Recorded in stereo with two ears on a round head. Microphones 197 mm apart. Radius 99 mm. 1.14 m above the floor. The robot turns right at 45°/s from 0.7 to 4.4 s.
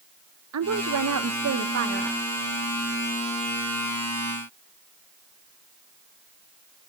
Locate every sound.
0.5 s a woman speaking: 100° right, 0.7 m; by 2.2 s 35° right, 0.7 m